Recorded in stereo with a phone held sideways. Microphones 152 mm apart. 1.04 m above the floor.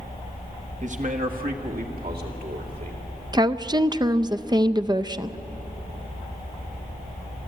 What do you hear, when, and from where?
0.8 s a man speaking: 50° right (ahead or behind), 1.3 m; by 3.0 s 80° right, 3 m
3.3 s a woman speaking: 30° right (ahead or behind), 0.5 m